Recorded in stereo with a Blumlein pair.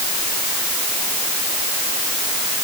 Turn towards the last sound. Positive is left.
No sound to turn to.